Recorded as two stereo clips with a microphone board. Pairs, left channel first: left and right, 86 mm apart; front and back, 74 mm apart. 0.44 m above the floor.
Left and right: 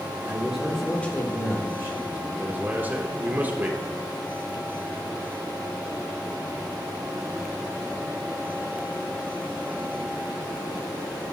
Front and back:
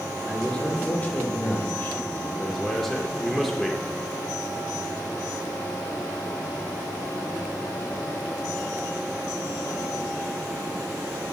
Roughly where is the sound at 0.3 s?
Right.